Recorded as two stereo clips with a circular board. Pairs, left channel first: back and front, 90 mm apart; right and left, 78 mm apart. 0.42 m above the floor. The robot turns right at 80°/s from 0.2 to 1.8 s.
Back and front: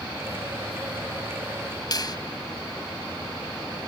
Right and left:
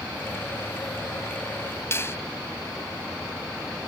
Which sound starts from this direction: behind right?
A finger snap, at 1.9 s.